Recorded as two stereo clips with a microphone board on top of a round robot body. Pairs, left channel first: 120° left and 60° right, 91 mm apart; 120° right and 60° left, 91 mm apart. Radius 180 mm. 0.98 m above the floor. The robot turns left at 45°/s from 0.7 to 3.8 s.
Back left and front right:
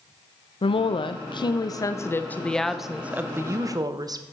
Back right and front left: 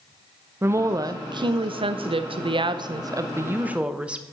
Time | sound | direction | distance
0.6 | a woman speaking | 120° left | 1.0 m